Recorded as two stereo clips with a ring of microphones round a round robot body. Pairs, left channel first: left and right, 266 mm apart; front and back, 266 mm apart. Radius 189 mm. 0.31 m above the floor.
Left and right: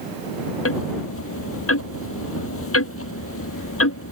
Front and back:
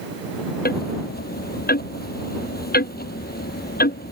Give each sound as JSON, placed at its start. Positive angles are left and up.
{"t": 0.7, "sound": "ticking", "azimuth_deg": 55}